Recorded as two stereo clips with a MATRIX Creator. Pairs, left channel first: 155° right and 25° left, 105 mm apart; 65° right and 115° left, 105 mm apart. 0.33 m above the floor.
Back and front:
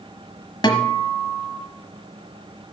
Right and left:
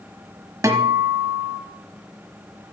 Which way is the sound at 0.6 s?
165° left.